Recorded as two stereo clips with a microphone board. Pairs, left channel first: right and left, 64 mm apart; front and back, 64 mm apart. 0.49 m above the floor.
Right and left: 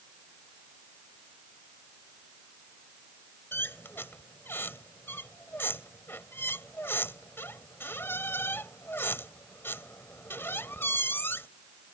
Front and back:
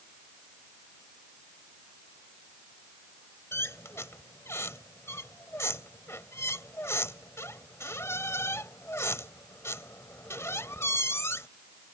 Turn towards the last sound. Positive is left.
turn(degrees=-40)